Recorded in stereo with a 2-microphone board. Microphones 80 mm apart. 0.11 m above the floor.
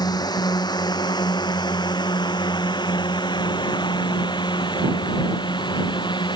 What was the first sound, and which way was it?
A drone, 60° left (ahead or behind).